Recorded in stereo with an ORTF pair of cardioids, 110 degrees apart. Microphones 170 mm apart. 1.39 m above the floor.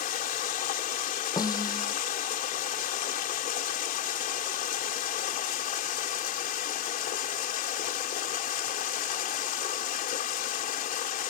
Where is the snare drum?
20° left.